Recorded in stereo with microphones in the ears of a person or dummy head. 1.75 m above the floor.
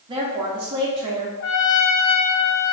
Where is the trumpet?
65° left (ahead or behind), 0.7 m.